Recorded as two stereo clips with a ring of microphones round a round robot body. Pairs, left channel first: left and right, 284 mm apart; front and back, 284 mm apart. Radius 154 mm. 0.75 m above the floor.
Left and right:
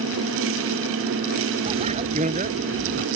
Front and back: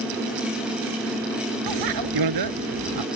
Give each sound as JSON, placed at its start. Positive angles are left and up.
{"t": 1.7, "sound": "a bicycle bell", "azimuth_deg": -165}